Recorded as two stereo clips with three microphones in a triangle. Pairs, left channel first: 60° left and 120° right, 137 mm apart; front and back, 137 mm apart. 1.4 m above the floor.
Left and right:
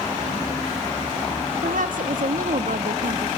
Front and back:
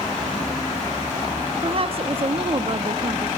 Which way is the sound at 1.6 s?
135° right.